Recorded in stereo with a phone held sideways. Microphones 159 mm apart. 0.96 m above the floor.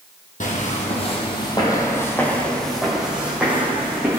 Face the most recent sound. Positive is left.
turn(degrees=-15)  # may be behind; listen again after turning